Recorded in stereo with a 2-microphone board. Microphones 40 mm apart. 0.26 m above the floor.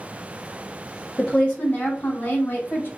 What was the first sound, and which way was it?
A woman speaking, 15° left (ahead or behind).